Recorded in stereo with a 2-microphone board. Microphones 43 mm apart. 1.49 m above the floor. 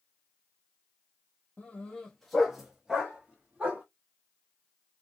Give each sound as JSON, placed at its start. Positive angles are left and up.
{"t": 1.6, "sound": "a dog barking", "side_deg": 30, "distance_m": 0.9}